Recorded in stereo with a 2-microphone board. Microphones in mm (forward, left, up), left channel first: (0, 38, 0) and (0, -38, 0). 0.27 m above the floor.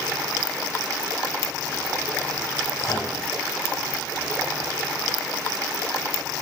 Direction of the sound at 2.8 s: 45° left (ahead or behind).